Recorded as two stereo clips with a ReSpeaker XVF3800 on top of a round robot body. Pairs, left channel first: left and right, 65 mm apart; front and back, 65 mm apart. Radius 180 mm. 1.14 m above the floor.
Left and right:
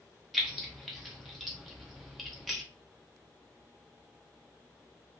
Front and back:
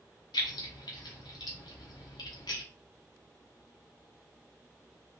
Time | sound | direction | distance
0.3 | keys jangling | straight ahead | 0.5 m